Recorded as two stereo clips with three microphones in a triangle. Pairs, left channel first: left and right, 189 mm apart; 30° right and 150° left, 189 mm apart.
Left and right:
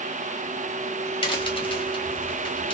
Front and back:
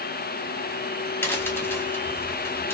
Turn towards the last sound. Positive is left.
turn(degrees=40)